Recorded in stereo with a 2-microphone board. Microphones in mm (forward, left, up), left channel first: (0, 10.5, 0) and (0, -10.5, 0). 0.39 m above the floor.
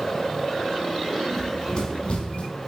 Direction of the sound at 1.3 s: 20° left (ahead or behind).